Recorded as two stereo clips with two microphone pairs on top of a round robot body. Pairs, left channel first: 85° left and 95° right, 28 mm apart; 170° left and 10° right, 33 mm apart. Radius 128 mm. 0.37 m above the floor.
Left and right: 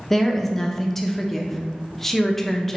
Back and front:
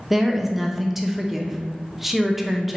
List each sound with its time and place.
0.1 s a woman speaking: 145° left, 0.8 m